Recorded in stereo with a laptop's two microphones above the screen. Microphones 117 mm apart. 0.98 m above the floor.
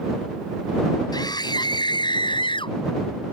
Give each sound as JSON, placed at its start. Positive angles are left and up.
{"t": 1.1, "sound": "a scream", "side_deg": 40}